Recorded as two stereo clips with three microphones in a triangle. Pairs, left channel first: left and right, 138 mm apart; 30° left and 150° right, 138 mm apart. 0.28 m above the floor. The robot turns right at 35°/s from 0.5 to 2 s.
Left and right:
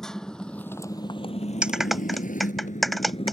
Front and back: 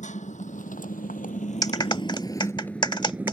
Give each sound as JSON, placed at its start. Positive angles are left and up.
{"t": 0.0, "sound": "a motorcycle", "azimuth_deg": 5}
{"t": 1.6, "sound": "a clap", "azimuth_deg": -15}